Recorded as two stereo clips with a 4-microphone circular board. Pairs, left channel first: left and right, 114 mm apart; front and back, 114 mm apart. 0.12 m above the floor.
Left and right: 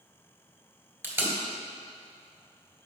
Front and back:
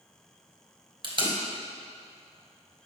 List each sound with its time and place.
1.0 s tape being pulled: 155° right, 1.5 m